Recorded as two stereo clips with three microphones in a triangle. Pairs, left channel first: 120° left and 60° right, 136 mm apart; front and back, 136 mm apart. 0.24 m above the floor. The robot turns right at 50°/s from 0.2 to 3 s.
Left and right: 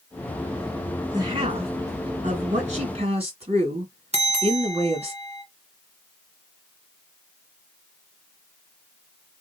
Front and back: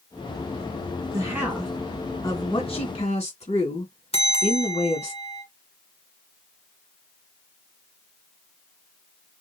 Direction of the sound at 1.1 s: 115° right.